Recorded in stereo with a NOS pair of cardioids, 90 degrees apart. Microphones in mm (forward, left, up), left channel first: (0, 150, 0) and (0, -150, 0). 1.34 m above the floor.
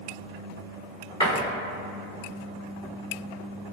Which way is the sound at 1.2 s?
20° left.